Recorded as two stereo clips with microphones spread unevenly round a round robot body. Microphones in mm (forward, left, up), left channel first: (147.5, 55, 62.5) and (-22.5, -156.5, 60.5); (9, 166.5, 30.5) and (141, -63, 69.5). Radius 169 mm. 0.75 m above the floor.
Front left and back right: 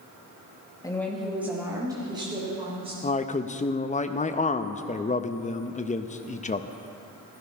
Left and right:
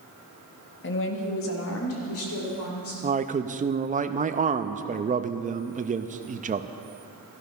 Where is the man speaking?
Straight ahead, 0.6 m.